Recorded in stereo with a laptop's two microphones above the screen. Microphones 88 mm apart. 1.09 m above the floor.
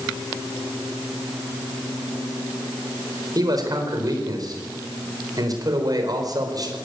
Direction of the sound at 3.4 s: 45° right (ahead or behind).